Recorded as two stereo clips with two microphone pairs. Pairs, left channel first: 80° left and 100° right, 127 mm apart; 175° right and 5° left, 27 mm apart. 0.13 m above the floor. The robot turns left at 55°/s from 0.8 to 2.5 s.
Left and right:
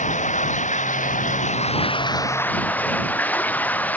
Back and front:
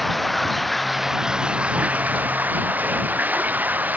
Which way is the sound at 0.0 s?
100° left.